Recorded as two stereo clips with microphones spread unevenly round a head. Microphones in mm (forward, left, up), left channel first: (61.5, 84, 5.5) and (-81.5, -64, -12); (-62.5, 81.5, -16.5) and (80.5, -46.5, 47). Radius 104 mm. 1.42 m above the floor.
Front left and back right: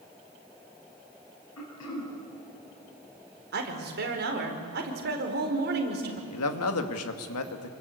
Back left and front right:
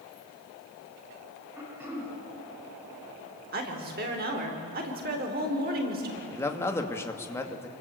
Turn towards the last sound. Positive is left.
turn(degrees=60)